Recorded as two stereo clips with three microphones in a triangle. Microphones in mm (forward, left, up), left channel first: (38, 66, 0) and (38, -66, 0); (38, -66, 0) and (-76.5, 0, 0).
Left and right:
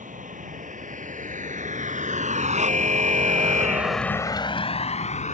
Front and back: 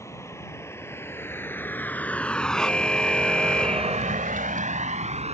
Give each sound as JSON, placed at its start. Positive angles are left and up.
{"t": 0.0, "sound": "a vehicle", "azimuth_deg": -100}
{"t": 2.5, "sound": "a car horn", "azimuth_deg": -115}